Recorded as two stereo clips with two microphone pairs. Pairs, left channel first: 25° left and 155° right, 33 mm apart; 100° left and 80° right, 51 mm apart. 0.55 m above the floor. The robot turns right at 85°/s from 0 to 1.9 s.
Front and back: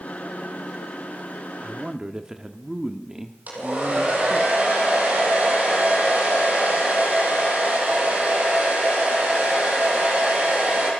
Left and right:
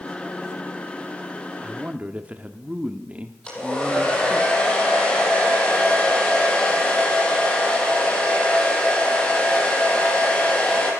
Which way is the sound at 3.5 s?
170° left.